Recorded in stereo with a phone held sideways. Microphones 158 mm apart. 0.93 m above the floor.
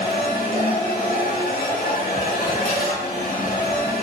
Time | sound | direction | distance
0.0 | a machine running | 75° left (ahead or behind) | 1.4 m